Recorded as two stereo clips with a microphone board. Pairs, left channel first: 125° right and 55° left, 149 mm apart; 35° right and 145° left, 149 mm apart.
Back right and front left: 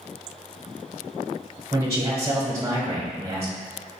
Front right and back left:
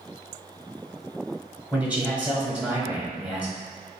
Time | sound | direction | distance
1.7 | a man speaking | 80° left | 1.1 m